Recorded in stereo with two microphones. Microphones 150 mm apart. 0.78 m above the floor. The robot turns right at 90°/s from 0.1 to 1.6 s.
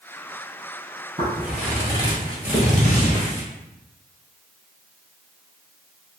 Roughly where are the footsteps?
Right.